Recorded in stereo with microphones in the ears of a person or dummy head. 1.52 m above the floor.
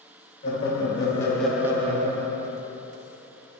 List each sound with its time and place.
0.4 s laughter: 35° left (ahead or behind), 1.3 m; by 2.5 s 75° right (ahead or behind), 0.8 m